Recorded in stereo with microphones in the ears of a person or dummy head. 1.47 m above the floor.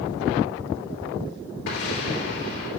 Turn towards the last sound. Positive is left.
turn(degrees=65)  # may be behind; listen again after turning